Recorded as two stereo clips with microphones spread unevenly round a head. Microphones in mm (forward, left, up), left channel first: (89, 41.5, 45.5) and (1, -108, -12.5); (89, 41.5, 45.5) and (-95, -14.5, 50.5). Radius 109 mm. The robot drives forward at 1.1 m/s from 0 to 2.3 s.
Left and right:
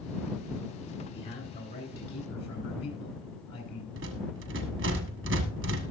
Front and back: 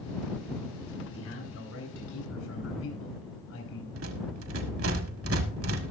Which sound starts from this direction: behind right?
A rattle, at 4.0 s.